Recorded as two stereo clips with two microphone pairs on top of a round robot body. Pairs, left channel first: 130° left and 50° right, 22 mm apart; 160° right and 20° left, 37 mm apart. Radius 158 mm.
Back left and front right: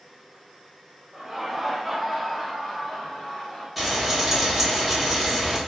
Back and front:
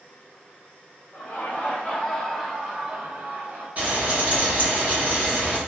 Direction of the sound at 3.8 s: 40° left.